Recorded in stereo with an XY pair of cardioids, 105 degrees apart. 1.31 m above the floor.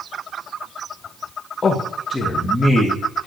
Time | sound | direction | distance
1.6 | a man speaking | 40° left | 1.6 m